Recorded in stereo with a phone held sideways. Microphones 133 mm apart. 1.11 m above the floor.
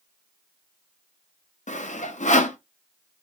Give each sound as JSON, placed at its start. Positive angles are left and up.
{"t": 1.7, "sound": "sawing", "side_deg": 65, "distance_m": 0.6}